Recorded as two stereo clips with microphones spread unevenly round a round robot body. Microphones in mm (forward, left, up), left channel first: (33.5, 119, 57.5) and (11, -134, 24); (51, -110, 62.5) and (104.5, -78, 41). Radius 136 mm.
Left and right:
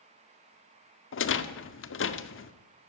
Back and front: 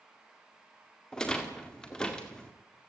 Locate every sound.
1.1 s a rattle: 120° left, 1.8 m